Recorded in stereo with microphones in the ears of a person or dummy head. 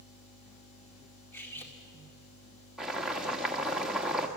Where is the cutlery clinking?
10° left (ahead or behind), 2 m.